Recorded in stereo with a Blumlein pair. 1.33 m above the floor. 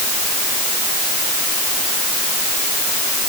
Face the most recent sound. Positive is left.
No sound to turn to.